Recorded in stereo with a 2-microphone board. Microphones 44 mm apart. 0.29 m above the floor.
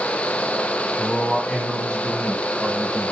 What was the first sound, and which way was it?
A man speaking, 5° left (ahead or behind).